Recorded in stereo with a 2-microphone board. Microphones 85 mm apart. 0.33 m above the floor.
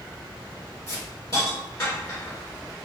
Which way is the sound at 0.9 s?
45° left (ahead or behind).